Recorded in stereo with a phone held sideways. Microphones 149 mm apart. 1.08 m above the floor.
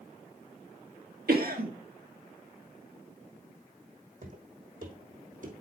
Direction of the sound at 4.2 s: 65° right (ahead or behind).